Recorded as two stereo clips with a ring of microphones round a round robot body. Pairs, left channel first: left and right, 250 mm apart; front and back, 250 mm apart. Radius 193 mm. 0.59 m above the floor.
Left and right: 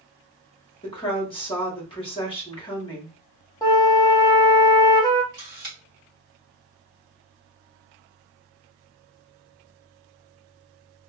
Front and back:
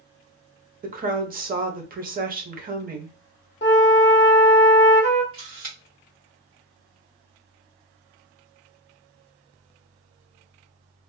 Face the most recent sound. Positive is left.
turn(degrees=-140)